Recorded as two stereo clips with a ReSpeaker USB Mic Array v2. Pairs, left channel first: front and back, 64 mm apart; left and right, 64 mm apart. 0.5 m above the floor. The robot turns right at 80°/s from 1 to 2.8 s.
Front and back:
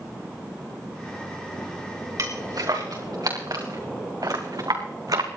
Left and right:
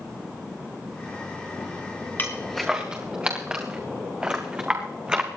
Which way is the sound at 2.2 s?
150° left.